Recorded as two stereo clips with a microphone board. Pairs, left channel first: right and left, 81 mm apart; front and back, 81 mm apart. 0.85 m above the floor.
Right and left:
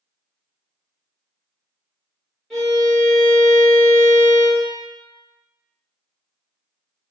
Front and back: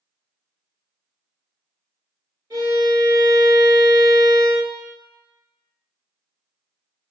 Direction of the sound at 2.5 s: 175° right.